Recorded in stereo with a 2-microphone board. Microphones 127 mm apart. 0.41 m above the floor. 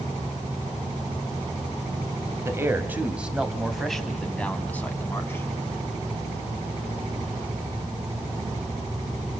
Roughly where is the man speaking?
Right.